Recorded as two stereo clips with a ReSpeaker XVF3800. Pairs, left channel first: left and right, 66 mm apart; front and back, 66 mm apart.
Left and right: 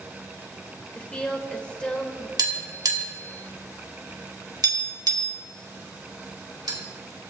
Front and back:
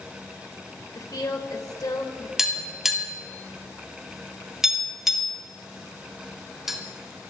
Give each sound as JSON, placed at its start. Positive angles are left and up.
{"t": 0.9, "sound": "a woman speaking", "azimuth_deg": 15, "distance_m": 2.5}
{"t": 2.4, "sound": "tapping", "azimuth_deg": -95, "distance_m": 2.5}